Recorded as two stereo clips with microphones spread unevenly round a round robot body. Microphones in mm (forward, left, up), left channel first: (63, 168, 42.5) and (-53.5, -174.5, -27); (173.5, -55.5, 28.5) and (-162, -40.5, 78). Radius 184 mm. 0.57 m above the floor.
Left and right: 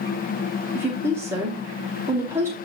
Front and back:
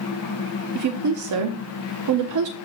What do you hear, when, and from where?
0.8 s a woman speaking: straight behind, 0.8 m